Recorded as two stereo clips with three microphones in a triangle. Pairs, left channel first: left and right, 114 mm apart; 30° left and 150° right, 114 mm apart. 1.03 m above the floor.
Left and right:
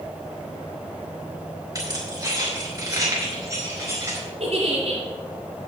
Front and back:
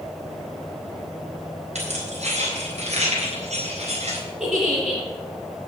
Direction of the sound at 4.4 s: 65° right.